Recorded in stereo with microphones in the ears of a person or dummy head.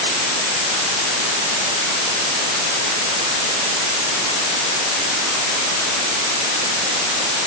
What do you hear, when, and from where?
Only background noise.